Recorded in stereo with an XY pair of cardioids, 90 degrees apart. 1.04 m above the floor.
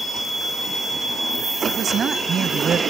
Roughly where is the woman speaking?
Ahead right.